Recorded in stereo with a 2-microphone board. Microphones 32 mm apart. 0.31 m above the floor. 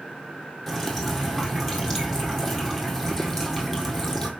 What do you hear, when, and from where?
0.7 s dripping: 10° left (ahead or behind), 1.9 m